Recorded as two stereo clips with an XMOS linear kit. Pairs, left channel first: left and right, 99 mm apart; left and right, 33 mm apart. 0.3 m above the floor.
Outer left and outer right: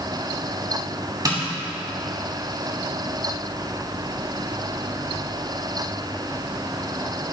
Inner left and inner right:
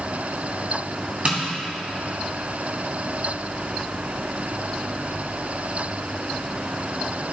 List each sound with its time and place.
1.2 s tapping: 40° right (ahead or behind), 2 m